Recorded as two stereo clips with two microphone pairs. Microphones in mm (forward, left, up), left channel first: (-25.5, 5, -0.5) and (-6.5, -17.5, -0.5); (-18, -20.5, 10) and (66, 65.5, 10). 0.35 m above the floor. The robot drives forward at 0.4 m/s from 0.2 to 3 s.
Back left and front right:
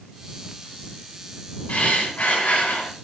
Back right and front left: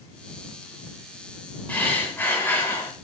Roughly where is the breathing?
Behind left.